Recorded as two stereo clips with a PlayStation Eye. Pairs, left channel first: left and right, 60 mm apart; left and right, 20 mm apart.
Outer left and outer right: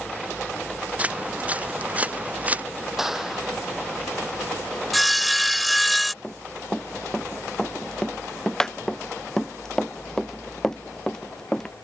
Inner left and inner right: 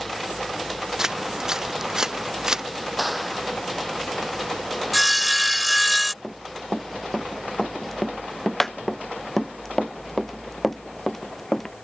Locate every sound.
1.0 s footsteps: 25° right (ahead or behind)
3.0 s a clap: 5° right (ahead or behind)
4.9 s sawing: centre (ahead or behind)
6.2 s running footsteps: 10° left (ahead or behind)